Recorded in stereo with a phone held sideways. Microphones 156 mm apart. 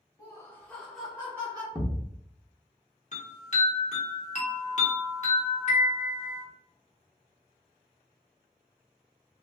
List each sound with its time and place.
0.2 s laughter: 25° left (ahead or behind), 1.4 m; by 1.6 s 25° right (ahead or behind), 1.1 m
1.8 s a thud: centre (ahead or behind), 0.8 m
3.1 s a chime: 50° left (ahead or behind), 0.9 m